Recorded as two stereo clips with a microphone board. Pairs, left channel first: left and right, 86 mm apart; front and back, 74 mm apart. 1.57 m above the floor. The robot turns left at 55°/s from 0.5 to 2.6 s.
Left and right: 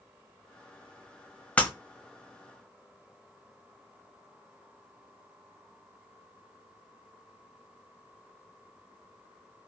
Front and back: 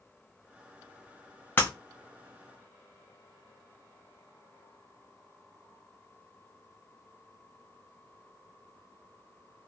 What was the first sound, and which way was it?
Breaking glass, 30° left.